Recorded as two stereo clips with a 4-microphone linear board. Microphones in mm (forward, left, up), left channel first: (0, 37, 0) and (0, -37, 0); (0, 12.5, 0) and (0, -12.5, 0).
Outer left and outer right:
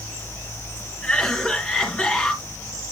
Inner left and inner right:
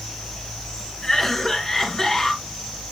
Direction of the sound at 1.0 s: 10° left (ahead or behind).